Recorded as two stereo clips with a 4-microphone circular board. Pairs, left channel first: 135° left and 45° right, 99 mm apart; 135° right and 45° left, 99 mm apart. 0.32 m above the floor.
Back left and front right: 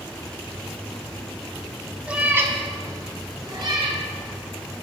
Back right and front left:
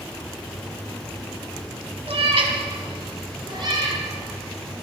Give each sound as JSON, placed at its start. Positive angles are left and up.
{"t": 2.1, "sound": "a cat meowing", "azimuth_deg": 35, "distance_m": 1.3}